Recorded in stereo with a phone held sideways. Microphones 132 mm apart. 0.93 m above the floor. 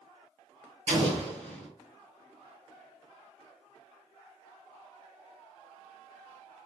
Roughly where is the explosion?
Right.